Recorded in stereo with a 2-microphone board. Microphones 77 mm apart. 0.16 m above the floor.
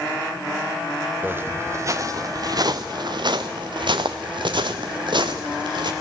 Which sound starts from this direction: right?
Footsteps, at 1.2 s.